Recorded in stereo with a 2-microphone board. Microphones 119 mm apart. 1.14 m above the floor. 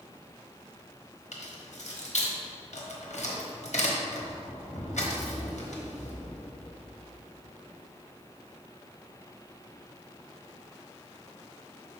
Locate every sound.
1.3 s keys jangling: 70° left (ahead or behind), 1.2 m